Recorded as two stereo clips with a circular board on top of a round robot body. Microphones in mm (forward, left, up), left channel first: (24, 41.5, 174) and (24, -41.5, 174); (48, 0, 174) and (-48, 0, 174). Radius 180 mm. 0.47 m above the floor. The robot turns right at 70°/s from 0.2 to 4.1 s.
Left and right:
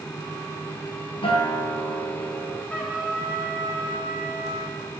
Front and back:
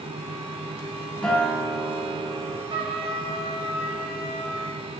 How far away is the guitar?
About 2.5 m.